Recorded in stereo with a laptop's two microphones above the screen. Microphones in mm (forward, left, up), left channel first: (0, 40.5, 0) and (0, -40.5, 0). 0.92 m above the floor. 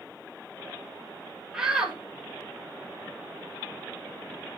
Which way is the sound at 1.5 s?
10° right (ahead or behind).